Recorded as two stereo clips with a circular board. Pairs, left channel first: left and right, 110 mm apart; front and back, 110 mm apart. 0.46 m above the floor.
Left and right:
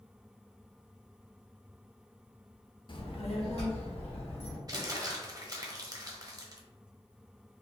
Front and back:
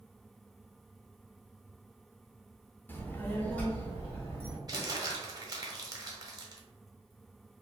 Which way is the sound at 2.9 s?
65° left.